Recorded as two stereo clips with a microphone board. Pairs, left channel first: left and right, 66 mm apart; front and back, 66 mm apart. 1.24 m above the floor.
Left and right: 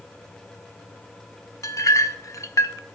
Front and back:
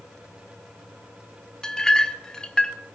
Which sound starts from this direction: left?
A clink, at 1.6 s.